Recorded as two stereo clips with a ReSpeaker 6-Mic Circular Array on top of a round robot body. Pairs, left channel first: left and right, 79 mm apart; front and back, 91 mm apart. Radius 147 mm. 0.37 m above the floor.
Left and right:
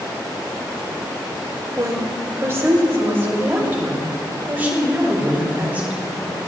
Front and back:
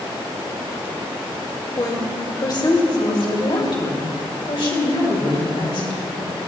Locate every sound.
1.8 s a woman speaking: 45° right, 2.0 m; by 6.4 s 20° right, 4 m